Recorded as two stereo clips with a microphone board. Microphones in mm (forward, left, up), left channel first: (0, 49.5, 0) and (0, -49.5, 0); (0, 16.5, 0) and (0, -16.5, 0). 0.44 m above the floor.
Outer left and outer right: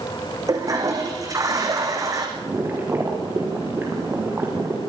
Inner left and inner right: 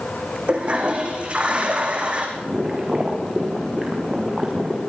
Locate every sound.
0.5 s a toilet flushing: 35° right (ahead or behind), 4.5 m
2.4 s boiling: 20° right (ahead or behind), 6 m